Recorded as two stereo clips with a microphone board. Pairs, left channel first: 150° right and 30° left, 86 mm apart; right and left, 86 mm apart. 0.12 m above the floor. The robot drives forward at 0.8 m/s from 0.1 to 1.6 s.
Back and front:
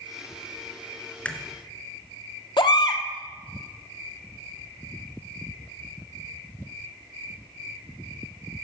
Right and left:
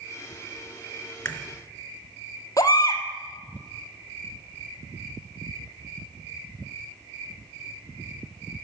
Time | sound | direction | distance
1.2 | a crack | 95° right | 1.3 m
2.6 | a baby crying | 135° right | 1.2 m